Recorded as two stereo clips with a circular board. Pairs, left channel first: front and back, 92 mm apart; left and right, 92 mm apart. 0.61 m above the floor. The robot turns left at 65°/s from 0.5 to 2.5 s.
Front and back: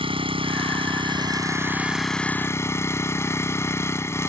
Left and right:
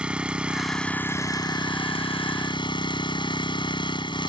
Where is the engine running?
170° right; by 4.3 s 60° left.